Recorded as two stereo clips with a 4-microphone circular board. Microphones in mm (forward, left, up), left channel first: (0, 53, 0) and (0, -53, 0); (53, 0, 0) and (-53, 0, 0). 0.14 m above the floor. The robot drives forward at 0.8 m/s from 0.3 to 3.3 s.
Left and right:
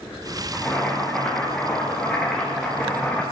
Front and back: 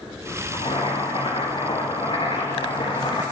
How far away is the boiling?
About 8.5 m.